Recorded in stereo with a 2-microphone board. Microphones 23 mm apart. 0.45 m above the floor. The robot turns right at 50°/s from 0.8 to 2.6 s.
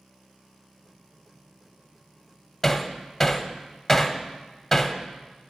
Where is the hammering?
10° left (ahead or behind), 0.6 m.